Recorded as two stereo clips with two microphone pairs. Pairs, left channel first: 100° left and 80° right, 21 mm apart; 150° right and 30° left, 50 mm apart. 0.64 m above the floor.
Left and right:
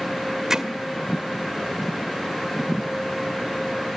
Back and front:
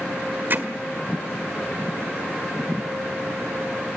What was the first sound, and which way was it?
Hammering, 15° right.